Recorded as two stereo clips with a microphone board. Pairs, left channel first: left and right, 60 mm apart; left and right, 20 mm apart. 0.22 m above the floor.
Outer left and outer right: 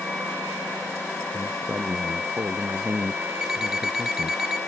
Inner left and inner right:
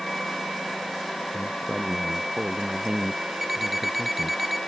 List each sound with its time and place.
1.3 s a man speaking: 45° right (ahead or behind)
3.4 s an alarm clock: 10° right (ahead or behind)